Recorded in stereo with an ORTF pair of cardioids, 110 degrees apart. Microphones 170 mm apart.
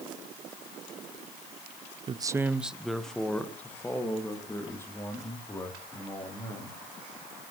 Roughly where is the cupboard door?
I don't hear a cupboard door.